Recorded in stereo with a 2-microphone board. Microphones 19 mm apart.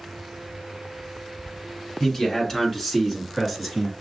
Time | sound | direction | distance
2.0 | a man speaking | 25° left (ahead or behind) | 1.5 m